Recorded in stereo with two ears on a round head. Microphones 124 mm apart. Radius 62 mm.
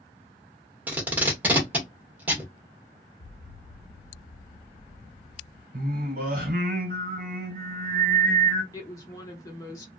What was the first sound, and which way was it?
Tape being pulled, 10° right (ahead or behind).